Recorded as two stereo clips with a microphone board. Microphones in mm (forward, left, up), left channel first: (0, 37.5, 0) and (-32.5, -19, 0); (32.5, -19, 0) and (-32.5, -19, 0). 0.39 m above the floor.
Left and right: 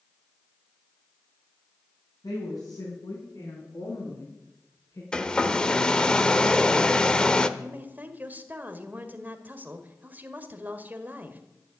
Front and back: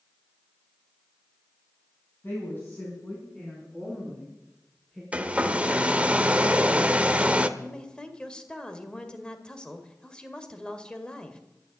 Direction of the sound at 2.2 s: 55° left.